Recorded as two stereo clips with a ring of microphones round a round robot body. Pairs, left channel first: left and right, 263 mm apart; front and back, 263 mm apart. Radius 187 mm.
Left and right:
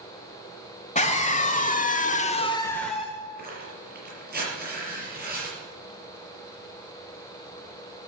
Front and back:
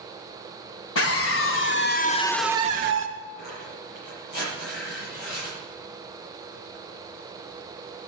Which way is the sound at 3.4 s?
35° right.